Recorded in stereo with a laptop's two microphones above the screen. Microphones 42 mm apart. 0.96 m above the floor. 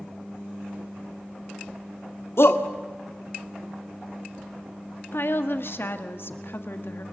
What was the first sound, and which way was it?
A shout, 75° left (ahead or behind).